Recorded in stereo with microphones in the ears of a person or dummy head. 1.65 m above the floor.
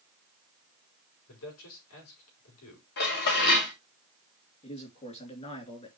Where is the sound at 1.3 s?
75° left (ahead or behind), 4.5 m.